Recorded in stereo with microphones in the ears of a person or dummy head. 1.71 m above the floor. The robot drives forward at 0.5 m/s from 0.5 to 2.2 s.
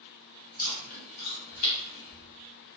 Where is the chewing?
50° left (ahead or behind), 0.9 m; by 2.3 s 55° left (ahead or behind), 0.9 m.